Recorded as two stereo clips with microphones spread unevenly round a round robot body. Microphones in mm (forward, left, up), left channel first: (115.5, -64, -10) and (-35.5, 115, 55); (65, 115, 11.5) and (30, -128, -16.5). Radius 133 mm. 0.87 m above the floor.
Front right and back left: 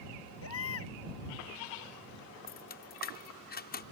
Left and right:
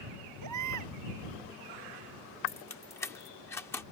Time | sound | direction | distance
0.4 | a baby crying | 90° right | ?
2.5 | keys jangling | straight ahead | ?